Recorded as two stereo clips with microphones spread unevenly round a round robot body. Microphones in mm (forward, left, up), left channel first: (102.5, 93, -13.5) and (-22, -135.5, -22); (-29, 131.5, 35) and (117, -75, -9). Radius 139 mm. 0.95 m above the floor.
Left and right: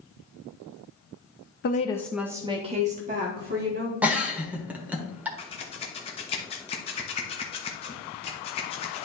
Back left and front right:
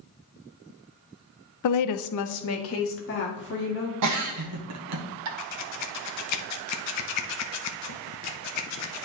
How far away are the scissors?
About 0.9 m.